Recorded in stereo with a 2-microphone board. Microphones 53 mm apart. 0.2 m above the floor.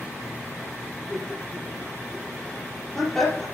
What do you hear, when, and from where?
1.1 s laughter: 5° left (ahead or behind), 6 m